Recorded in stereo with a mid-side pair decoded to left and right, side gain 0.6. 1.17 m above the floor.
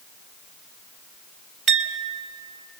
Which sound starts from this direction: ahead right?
A clink, at 1.7 s.